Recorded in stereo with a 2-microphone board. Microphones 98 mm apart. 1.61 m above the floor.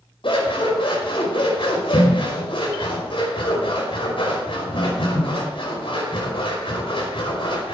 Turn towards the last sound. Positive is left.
turn(degrees=60)  # may be behind; listen again after turning